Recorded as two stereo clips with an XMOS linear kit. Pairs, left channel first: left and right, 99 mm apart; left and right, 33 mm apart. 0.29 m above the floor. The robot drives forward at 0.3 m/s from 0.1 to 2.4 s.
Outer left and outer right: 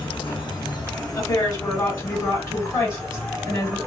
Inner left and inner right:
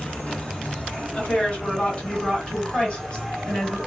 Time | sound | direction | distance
0.0 | an insect | 50° left (ahead or behind) | 1.1 m
1.1 | a woman speaking | 35° left (ahead or behind) | 1.9 m